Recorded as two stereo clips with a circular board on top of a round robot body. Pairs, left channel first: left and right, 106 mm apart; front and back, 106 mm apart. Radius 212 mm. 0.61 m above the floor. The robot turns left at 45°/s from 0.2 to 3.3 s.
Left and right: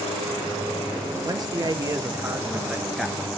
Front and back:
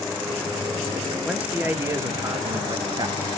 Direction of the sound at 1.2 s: 100° right.